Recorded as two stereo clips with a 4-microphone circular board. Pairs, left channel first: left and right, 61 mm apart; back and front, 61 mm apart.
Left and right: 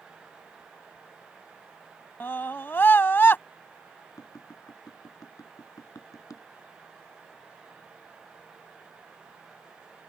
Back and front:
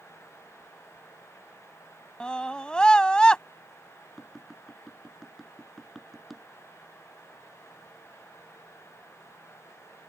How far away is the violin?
I don't hear a violin.